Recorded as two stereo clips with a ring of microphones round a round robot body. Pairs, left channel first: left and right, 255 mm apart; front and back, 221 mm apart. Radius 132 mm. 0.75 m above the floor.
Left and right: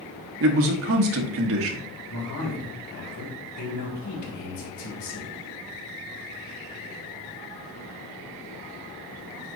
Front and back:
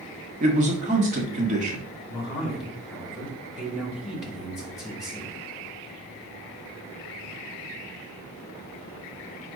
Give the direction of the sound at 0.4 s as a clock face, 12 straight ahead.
4 o'clock.